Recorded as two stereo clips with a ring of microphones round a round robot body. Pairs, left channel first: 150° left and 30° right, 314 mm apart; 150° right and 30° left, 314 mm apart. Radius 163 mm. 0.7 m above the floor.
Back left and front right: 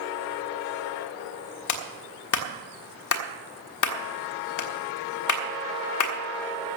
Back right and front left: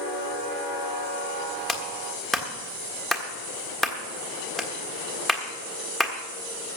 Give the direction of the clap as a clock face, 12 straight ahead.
8 o'clock.